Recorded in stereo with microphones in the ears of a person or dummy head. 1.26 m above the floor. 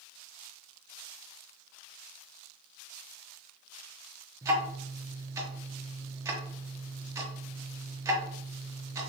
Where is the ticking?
15° right (ahead or behind), 0.5 m.